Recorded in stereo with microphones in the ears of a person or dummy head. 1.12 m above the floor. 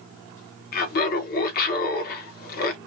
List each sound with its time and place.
0.7 s laughter: 45° left (ahead or behind), 1.0 m